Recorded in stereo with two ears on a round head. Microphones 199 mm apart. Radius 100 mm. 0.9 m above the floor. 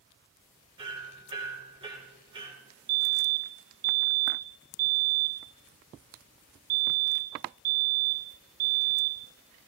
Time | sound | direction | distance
0.8 | hammering | 25° right (ahead or behind) | 3 m
2.9 | a fire alarm | 50° right (ahead or behind) | 1.8 m